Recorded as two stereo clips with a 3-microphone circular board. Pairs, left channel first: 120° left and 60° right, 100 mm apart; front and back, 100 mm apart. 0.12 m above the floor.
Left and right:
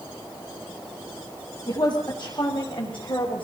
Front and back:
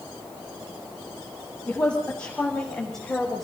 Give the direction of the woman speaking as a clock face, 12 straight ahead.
9 o'clock.